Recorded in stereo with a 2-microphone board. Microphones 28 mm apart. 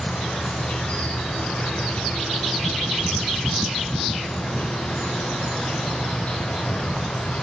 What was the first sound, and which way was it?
An insect, 55° left (ahead or behind).